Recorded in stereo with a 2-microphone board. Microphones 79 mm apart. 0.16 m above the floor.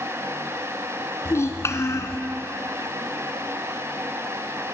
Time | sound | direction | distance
1.2 | a child speaking | 40° left (ahead or behind) | 1.2 m